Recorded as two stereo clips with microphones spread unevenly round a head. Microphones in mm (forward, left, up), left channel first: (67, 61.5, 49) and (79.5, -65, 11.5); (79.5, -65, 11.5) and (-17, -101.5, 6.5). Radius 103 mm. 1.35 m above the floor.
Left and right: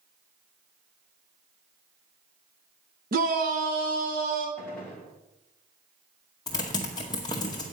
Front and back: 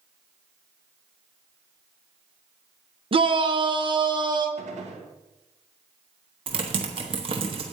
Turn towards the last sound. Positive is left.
turn(degrees=150)